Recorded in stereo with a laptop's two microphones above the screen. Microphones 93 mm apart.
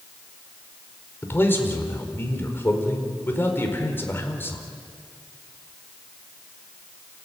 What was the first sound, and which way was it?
A man speaking, 25° left (ahead or behind).